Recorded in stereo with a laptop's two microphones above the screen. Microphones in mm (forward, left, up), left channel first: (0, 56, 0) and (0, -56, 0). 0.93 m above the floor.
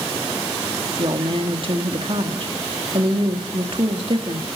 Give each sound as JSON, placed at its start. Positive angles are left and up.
{"t": 1.0, "sound": "a woman speaking", "side_deg": -50, "distance_m": 1.8}